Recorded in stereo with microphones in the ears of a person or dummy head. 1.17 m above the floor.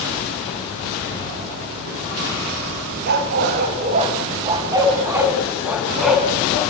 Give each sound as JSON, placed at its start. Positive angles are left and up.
{"t": 3.1, "sound": "a dog barking", "side_deg": -55, "distance_m": 3.0}